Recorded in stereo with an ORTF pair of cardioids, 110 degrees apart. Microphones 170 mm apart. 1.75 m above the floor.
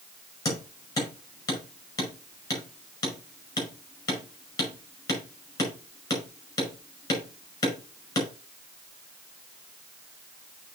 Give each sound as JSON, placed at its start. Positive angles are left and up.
{"t": 0.5, "sound": "hammering", "azimuth_deg": 20, "distance_m": 5.0}